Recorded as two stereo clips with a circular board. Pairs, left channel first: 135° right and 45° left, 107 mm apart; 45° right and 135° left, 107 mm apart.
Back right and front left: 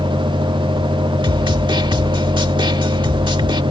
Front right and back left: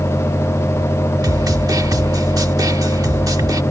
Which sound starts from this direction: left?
A snare drum, at 1.2 s.